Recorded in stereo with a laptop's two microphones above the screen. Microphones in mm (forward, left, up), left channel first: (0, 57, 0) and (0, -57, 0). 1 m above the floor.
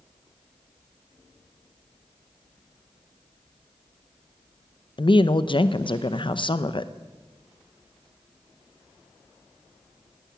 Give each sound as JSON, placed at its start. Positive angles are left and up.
{"t": 5.0, "sound": "a woman speaking", "side_deg": 50, "distance_m": 0.7}